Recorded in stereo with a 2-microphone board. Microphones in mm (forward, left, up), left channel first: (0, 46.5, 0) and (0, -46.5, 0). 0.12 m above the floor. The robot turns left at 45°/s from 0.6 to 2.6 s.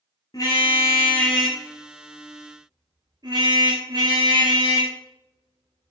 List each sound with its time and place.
0.3 s a car horn: 40° left (ahead or behind), 7 m; by 5.9 s 50° right (ahead or behind), 7 m